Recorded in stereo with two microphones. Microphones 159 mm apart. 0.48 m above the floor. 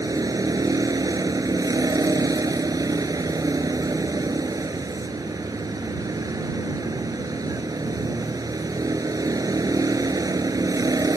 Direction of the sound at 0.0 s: 25° right (ahead or behind).